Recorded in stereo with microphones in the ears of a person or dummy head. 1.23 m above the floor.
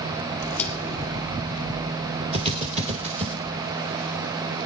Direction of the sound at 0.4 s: 10° left (ahead or behind).